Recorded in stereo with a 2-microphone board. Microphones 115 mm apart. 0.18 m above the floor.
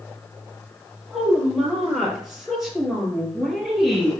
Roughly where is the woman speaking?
Centre.